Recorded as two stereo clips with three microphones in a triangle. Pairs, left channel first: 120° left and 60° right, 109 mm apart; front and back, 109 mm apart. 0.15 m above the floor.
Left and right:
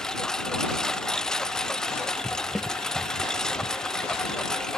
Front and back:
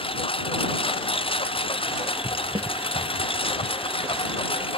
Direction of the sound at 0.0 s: 35° left.